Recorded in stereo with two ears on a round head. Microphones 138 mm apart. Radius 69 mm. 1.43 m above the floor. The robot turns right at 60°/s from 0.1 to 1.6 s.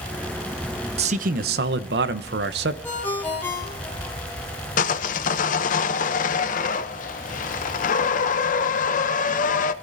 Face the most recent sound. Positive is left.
turn(degrees=55)  # may be behind; listen again after turning